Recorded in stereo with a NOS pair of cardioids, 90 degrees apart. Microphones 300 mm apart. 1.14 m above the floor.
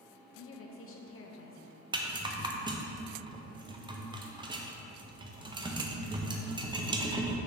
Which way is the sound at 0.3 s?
50° left.